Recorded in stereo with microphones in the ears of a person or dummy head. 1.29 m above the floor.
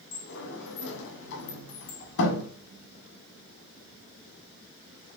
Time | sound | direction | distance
0.1 | a sliding door | 70° left (ahead or behind) | 1.2 m